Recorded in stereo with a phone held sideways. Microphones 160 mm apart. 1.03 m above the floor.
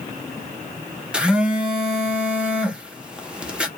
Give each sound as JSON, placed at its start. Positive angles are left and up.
{"t": 1.1, "sound": "a phone buzzing", "side_deg": -5, "distance_m": 0.6}